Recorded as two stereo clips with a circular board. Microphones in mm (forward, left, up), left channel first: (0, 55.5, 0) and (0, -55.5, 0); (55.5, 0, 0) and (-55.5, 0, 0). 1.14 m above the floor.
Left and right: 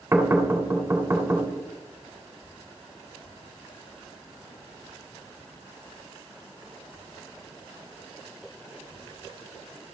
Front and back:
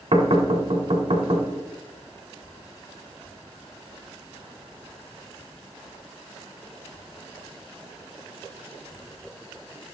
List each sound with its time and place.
0.1 s knocking: 160° right, 1.5 m